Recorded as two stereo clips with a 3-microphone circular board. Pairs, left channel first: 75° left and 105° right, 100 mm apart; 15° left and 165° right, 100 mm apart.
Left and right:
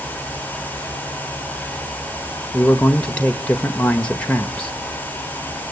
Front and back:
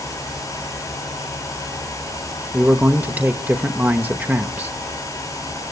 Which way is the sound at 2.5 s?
140° left.